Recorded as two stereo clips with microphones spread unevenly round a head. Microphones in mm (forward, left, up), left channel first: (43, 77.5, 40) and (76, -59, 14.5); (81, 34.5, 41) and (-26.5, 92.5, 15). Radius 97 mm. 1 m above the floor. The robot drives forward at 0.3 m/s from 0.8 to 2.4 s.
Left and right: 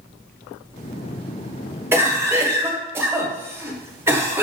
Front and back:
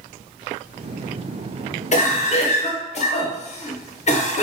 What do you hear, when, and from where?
1.9 s a cough: 15° right, 1.2 m; by 4.4 s 20° right, 1.1 m